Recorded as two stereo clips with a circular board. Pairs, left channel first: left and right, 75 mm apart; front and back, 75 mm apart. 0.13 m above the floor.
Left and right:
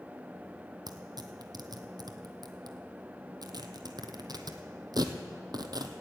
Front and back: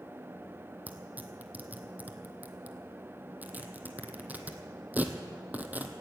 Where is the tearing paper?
115° right, 1.2 m.